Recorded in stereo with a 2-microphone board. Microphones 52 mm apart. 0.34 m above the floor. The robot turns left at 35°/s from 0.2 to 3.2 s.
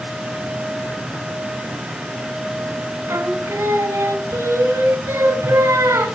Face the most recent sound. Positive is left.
turn(degrees=-60)  # may be behind; listen again after turning